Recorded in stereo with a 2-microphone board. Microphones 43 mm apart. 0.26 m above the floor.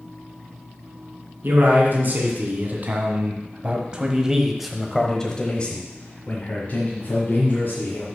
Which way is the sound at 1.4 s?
50° right (ahead or behind).